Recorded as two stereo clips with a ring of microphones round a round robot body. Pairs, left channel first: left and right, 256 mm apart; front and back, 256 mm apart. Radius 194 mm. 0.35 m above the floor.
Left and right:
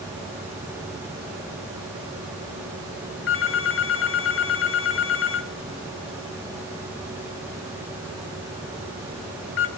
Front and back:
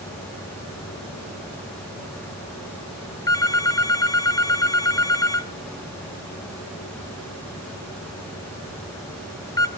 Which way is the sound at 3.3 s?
75° left.